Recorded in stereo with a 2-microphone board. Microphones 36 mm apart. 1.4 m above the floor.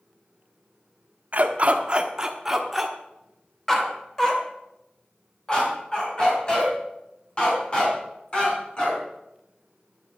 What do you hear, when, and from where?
1.3 s a dog barking: 45° right (ahead or behind), 1.2 m; by 9.0 s 30° left (ahead or behind), 6.5 m